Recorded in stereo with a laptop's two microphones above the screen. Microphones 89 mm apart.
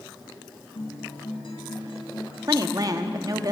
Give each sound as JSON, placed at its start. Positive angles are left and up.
{"t": 0.8, "sound": "a guitar", "side_deg": 75, "distance_m": 3.0}
{"t": 2.4, "sound": "a woman speaking", "side_deg": -45, "distance_m": 1.2}